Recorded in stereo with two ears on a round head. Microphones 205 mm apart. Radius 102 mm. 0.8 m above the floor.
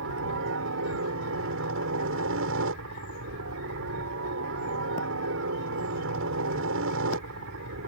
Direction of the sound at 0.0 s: 60° right (ahead or behind).